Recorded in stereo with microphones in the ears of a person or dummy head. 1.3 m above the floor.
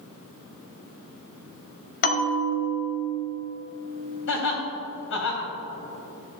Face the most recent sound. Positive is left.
turn(degrees=70)  # may be behind; listen again after turning